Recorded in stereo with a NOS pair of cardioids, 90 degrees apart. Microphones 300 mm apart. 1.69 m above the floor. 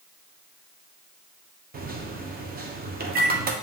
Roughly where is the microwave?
Ahead right.